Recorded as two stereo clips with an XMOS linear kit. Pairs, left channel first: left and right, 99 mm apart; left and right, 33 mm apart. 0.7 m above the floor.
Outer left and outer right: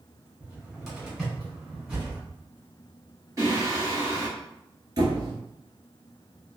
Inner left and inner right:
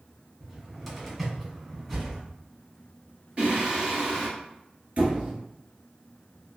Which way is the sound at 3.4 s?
35° right (ahead or behind).